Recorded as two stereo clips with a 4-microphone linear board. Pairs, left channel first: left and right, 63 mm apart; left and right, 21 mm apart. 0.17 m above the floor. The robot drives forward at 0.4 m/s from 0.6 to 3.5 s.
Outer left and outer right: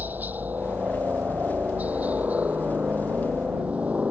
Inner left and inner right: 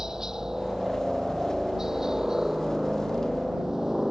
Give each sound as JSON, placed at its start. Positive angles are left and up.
{"t": 0.0, "sound": "a helicopter", "side_deg": -30}